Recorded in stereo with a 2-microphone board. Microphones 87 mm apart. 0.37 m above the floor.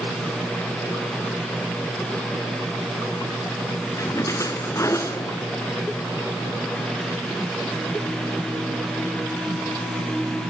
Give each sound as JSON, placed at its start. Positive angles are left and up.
{"t": 4.0, "sound": "a splash", "side_deg": 35, "distance_m": 1.5}